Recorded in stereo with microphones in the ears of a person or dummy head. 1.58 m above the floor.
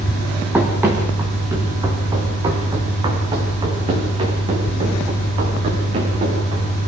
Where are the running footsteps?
10° right (ahead or behind), 3.5 m; by 6.7 s 35° right (ahead or behind), 8 m.